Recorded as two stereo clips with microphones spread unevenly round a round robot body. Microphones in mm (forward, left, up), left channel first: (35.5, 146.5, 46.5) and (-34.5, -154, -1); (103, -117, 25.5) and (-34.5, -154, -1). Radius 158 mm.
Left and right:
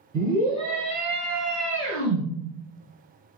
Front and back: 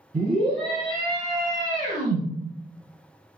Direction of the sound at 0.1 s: 165° left.